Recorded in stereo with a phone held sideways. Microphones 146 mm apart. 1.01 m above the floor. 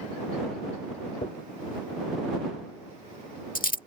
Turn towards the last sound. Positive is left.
turn(degrees=70)  # may be behind; listen again after turning